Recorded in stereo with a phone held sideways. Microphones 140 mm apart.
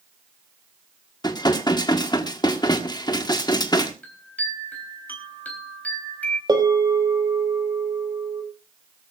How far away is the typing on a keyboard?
No typing on a keyboard in this recording.